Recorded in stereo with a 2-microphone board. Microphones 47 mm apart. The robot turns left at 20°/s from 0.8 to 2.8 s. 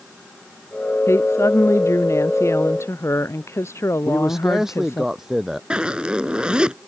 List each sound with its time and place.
1.1 s a woman speaking: 110° left; by 5.0 s 75° left
4.0 s a man speaking: 5° right (ahead or behind)
5.7 s a zipper: 20° right (ahead or behind)